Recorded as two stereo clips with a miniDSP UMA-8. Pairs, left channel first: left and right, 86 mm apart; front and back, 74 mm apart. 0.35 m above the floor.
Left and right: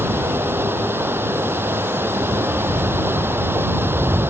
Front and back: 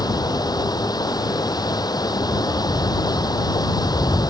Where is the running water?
25° right.